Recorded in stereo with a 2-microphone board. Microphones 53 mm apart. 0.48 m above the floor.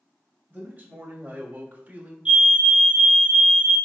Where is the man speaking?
30° right (ahead or behind), 2 m; by 2.1 s 25° right (ahead or behind), 0.9 m.